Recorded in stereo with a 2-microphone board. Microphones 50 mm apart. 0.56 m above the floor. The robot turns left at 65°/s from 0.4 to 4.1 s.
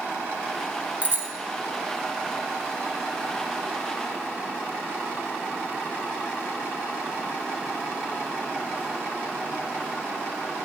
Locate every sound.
1.0 s a bicycle bell: 30° right (ahead or behind), 2.5 m; by 1.3 s 50° right (ahead or behind), 2.5 m